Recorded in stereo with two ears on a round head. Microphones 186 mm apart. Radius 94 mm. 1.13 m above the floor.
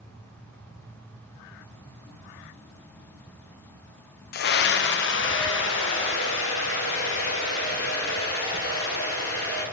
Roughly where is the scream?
Left.